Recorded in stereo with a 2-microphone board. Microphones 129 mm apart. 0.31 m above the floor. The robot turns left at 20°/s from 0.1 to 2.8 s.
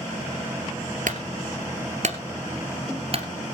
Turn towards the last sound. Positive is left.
turn(degrees=-50)  # may be behind; listen again after turning